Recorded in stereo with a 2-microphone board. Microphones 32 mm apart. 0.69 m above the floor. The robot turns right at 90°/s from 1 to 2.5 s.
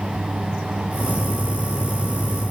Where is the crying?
No crying in this recording.